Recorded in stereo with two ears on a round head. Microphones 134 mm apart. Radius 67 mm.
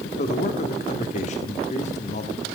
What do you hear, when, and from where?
0.2 s a man speaking: 45° left (ahead or behind), 1.6 m